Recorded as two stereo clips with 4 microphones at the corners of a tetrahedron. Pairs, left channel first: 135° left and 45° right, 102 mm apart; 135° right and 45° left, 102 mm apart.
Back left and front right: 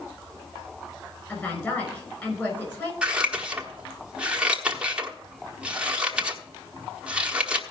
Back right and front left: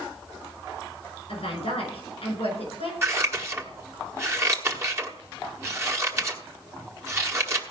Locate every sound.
1.3 s a woman speaking: 160° right, 6.5 m
3.0 s scissors: 25° left, 1.2 m